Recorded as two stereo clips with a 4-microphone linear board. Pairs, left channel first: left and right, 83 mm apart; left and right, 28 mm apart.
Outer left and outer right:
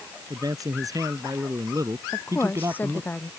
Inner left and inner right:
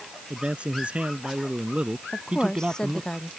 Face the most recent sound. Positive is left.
turn(degrees=25)  # may be behind; listen again after turning